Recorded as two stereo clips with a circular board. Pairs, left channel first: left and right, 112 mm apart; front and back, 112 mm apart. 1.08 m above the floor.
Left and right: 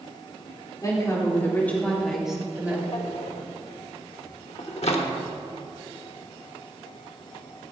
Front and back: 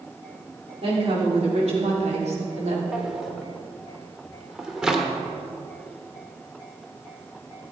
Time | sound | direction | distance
0.8 | a woman speaking | 145° left | 3.5 m
2.9 | a drawer | 95° left | 1.2 m